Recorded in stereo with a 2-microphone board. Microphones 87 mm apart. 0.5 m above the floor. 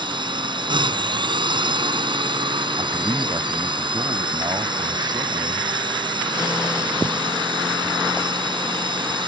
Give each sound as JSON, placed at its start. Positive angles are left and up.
{"t": 0.0, "sound": "a drone", "side_deg": -60}
{"t": 2.8, "sound": "a man speaking", "side_deg": -55}